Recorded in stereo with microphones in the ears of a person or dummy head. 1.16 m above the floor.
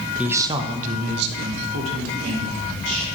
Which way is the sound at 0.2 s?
5° right (ahead or behind).